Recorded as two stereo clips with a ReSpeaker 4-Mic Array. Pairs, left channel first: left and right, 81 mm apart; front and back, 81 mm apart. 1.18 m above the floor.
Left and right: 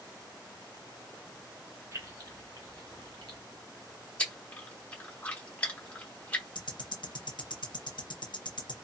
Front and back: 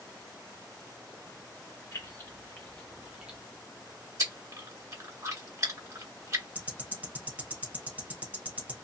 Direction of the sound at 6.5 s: 110° left.